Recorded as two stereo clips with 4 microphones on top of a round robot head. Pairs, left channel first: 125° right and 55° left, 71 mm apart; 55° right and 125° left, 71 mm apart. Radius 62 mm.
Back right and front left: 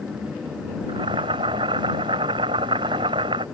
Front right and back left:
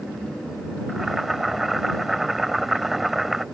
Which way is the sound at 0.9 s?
35° left.